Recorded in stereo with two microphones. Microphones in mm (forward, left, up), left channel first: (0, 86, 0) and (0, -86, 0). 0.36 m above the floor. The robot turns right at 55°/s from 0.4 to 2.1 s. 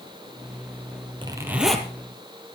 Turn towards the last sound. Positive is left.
turn(degrees=20)